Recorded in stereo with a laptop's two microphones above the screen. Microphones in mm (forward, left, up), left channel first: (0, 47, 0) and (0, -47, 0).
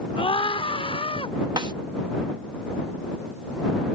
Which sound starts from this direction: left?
A scream, at 0.2 s.